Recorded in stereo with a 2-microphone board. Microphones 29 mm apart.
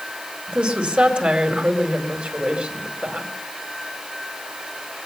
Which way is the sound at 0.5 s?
45° right (ahead or behind).